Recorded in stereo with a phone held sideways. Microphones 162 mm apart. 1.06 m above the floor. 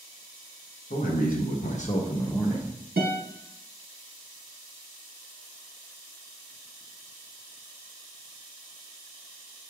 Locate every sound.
0.9 s a man speaking: 60° left (ahead or behind), 1.0 m; by 2.8 s 5° right (ahead or behind), 0.7 m
3.0 s a guitar: 85° right, 1.1 m